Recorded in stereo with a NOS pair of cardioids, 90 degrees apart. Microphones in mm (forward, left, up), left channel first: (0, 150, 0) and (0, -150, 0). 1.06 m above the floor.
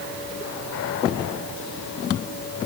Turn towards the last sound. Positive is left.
No sound to turn to.